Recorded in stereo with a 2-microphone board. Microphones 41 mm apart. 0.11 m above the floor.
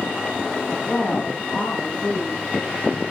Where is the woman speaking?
60° left (ahead or behind), 3 m.